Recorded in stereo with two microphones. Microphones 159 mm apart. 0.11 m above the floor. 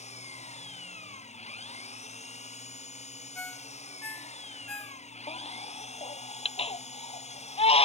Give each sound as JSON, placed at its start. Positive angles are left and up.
{"t": 0.0, "sound": "an engine running", "side_deg": 45}
{"t": 3.4, "sound": "a ringtone", "side_deg": 10}
{"t": 5.3, "sound": "a baby crying", "side_deg": 40}